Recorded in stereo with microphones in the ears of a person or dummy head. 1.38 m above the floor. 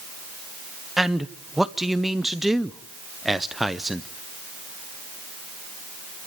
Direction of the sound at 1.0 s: 5° right (ahead or behind).